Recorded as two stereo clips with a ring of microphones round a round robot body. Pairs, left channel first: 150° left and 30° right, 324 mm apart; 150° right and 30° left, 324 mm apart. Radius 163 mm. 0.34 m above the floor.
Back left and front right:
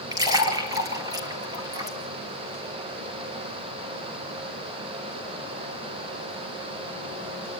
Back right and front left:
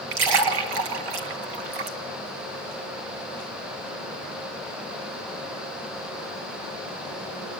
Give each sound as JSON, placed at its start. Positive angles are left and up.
{"t": 0.1, "sound": "a splash", "azimuth_deg": 50, "distance_m": 1.9}